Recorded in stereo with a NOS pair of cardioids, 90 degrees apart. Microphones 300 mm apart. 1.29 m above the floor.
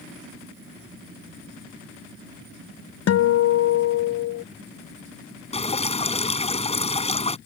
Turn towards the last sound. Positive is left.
turn(degrees=20)